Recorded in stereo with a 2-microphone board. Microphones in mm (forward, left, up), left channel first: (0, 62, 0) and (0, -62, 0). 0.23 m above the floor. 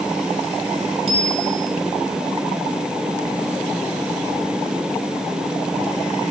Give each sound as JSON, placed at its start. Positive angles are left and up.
{"t": 1.1, "sound": "a bicycle bell", "side_deg": -50, "distance_m": 4.5}